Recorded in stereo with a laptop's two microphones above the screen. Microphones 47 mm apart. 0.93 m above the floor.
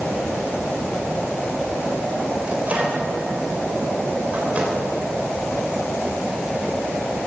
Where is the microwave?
30° right (ahead or behind), 4 m.